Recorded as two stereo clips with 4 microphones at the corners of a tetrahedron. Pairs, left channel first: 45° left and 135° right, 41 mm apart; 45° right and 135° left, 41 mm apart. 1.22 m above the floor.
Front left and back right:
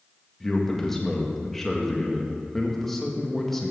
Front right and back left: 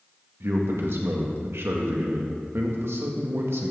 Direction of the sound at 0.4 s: 125° left.